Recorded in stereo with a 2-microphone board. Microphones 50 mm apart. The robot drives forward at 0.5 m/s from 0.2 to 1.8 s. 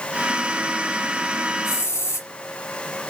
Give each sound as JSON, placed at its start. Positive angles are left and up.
{"t": 1.6, "sound": "a hiss", "side_deg": 60, "distance_m": 1.1}